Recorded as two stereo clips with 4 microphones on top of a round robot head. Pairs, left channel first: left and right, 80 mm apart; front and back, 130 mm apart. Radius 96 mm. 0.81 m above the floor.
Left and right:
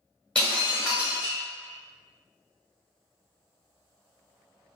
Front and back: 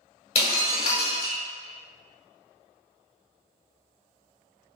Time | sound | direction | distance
0.3 | breaking glass | 10° left | 0.5 m